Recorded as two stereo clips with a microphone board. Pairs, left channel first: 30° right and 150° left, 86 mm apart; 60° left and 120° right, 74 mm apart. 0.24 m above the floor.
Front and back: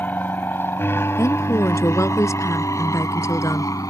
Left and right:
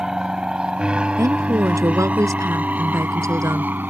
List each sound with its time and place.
0.0 s an aircraft: 50° right; by 3.9 s 65° right
1.2 s a woman speaking: 80° right